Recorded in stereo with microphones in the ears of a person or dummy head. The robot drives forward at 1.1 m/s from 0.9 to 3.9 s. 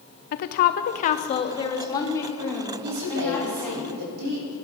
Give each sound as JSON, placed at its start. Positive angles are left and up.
{"t": 0.3, "sound": "a woman speaking", "side_deg": 50, "distance_m": 0.8}
{"t": 2.8, "sound": "a woman speaking", "side_deg": -85, "distance_m": 6.0}